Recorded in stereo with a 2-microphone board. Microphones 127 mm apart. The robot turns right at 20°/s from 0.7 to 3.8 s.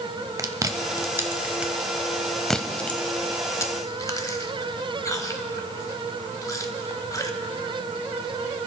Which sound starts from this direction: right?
Chewing, at 0.4 s.